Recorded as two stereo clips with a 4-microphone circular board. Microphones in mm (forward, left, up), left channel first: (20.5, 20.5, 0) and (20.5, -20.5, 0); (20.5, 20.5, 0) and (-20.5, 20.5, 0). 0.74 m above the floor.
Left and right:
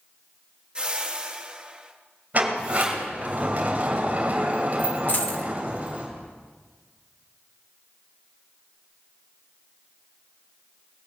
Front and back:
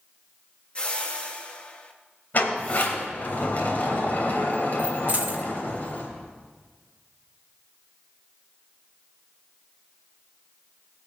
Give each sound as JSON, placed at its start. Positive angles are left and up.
{"t": 0.8, "sound": "a whoosh", "azimuth_deg": -40, "distance_m": 1.2}
{"t": 2.3, "sound": "a sliding door", "azimuth_deg": -40, "distance_m": 2.5}
{"t": 5.1, "sound": "a dropped coin", "azimuth_deg": 130, "distance_m": 0.9}